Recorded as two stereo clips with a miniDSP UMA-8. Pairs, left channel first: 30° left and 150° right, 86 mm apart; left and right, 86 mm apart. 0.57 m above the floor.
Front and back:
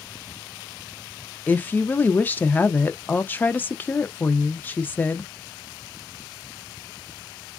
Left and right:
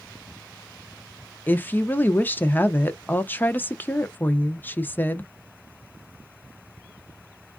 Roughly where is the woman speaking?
Ahead left.